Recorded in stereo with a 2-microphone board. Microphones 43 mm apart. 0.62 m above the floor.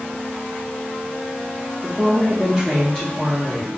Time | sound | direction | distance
1.8 | a woman speaking | 30° right (ahead or behind) | 0.7 m